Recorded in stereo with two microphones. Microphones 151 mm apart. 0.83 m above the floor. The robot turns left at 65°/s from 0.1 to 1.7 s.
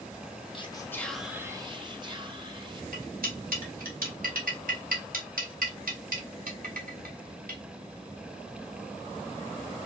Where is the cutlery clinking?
75° right (ahead or behind), 1.4 m.